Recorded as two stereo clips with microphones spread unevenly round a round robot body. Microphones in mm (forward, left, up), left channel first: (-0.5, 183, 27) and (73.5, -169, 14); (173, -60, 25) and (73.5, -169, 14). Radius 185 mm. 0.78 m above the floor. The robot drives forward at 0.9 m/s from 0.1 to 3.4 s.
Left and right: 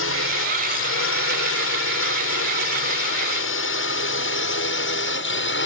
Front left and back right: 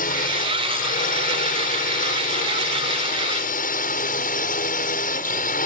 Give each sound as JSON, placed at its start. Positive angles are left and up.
{"t": 0.0, "sound": "a drone", "azimuth_deg": 50}